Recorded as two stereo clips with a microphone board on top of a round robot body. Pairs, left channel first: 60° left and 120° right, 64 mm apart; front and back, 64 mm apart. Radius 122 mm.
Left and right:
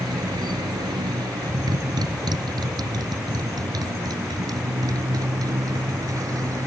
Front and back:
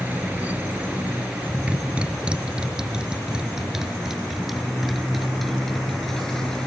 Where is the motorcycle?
115° right; by 6.7 s 80° right.